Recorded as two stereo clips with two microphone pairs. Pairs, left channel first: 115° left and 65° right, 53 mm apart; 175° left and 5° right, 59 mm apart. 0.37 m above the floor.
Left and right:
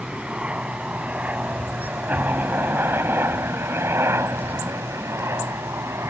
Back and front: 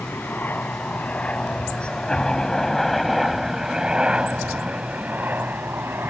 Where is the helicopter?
135° right; by 6.1 s 45° right.